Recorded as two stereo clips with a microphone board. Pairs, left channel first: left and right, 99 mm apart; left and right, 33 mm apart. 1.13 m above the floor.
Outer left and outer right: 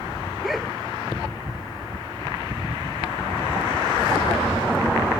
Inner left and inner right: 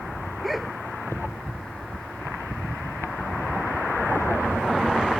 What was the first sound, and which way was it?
A dog barking, centre (ahead or behind).